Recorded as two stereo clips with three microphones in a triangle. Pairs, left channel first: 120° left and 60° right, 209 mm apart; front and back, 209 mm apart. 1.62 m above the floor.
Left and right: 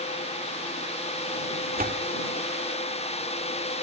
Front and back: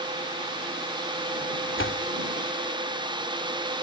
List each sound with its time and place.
1.8 s a door slam: 15° right